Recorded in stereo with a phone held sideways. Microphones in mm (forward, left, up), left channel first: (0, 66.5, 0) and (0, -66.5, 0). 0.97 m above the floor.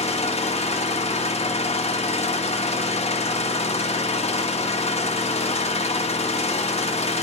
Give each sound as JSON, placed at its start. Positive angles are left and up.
{"t": 0.0, "sound": "an engine running", "side_deg": 55, "distance_m": 1.3}